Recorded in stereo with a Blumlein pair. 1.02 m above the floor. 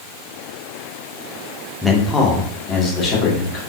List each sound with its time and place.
1.8 s a man speaking: 5° left, 0.9 m; by 3.6 s 30° left, 2 m